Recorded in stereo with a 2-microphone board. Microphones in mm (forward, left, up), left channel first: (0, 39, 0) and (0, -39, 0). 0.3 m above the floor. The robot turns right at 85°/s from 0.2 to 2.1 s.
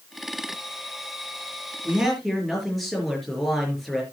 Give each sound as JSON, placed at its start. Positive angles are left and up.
{"t": 1.9, "sound": "a man speaking", "side_deg": -20, "distance_m": 5.0}